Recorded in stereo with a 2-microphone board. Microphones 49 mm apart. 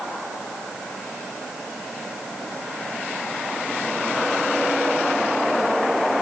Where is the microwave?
I don't hear a microwave.